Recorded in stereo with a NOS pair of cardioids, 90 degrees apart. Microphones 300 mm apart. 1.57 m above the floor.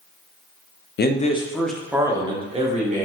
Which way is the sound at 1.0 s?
35° left.